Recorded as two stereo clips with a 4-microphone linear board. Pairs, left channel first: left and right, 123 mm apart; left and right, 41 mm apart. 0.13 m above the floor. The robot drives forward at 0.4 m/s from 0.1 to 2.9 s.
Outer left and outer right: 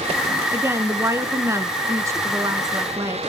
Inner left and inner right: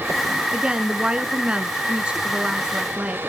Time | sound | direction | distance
0.5 | a woman speaking | 20° right (ahead or behind) | 1.2 m